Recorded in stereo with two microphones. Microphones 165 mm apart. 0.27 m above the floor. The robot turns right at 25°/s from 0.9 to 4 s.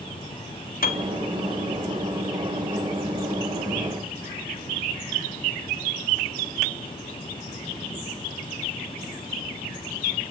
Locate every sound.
0.8 s a piano: 65° left (ahead or behind), 1.2 m